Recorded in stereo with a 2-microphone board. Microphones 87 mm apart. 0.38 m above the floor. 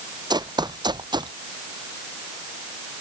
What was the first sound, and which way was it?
Running footsteps, 50° right (ahead or behind).